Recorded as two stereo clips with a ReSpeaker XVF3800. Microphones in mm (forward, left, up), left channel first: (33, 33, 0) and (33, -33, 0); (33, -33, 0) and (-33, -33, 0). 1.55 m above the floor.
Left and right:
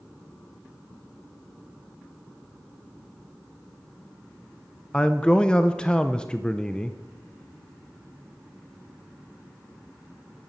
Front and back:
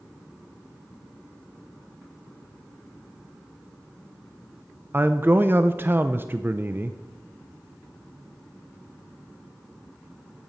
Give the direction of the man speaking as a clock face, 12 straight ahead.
7 o'clock.